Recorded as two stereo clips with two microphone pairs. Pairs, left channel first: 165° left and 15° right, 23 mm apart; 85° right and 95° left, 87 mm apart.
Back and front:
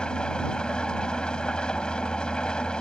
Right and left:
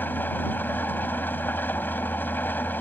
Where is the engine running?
150° right.